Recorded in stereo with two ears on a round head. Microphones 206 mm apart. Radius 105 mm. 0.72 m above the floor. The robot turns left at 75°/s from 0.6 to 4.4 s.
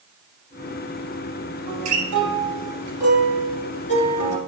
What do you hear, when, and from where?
1.7 s a guitar: 60° right, 3.5 m; by 4.4 s 95° left, 3.5 m